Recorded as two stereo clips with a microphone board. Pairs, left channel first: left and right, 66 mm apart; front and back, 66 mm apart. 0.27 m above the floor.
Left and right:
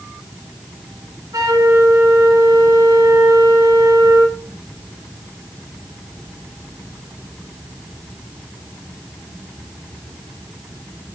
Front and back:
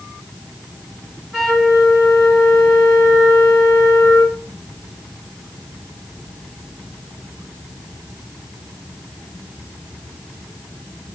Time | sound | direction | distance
1.3 | a flute | 90° right | 5 m